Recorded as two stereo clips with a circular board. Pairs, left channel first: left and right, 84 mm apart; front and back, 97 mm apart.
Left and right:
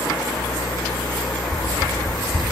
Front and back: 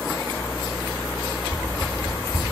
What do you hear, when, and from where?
1.5 s a whoosh: 155° right, 2.5 m